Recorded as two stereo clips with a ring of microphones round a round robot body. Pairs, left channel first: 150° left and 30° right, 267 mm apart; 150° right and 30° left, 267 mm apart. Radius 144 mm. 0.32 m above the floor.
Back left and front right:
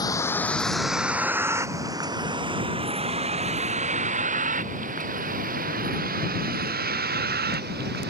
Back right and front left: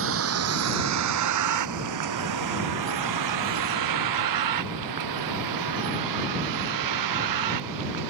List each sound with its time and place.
0.0 s a vehicle: 75° left; by 8.1 s 25° left